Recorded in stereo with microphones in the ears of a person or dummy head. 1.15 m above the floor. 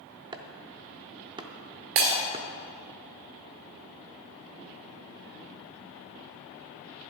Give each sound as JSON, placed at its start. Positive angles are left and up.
{"t": 0.3, "sound": "chopping", "side_deg": -20, "distance_m": 0.5}
{"t": 1.9, "sound": "breaking glass", "side_deg": -50, "distance_m": 1.7}